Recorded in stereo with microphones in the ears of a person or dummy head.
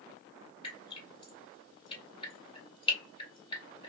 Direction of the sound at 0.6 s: 30° left (ahead or behind).